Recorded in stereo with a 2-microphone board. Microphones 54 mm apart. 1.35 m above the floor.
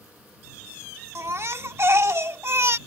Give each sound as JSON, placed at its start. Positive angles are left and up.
{"t": 1.1, "sound": "a baby crying", "side_deg": -55}